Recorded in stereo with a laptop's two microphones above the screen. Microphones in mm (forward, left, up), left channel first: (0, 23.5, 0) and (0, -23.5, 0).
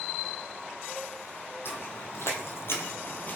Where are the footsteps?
55° left (ahead or behind), 2.5 m; by 3.4 s 35° left (ahead or behind), 1.6 m.